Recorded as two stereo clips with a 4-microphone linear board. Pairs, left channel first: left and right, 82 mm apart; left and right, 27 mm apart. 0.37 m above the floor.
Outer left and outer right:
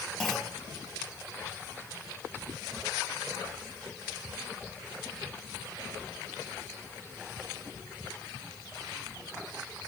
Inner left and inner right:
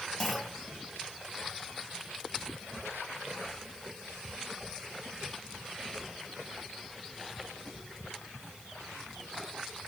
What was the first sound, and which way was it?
A clunk, 5° left (ahead or behind).